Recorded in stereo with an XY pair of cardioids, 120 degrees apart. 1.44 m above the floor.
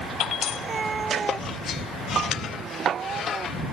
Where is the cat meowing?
30° right; by 3.6 s 40° right.